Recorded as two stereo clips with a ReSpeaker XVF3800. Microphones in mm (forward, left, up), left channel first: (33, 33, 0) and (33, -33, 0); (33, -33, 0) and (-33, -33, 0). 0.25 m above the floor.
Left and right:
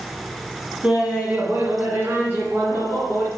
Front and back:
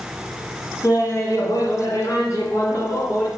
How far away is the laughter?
About 1.8 m.